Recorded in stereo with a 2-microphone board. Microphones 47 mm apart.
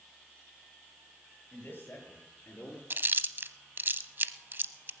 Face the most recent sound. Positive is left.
turn(degrees=-50)  # may be behind; listen again after turning